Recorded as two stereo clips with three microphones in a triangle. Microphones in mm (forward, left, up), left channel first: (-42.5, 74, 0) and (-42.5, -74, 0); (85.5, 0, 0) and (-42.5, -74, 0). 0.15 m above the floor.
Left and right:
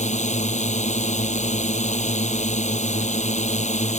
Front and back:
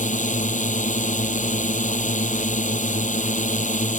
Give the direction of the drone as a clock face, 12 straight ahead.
10 o'clock.